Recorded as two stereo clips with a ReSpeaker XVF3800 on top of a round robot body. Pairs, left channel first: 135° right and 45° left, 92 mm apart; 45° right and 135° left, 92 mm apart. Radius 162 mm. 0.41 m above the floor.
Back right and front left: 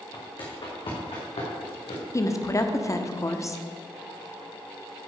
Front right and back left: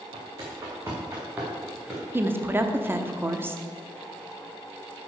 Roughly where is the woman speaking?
Behind.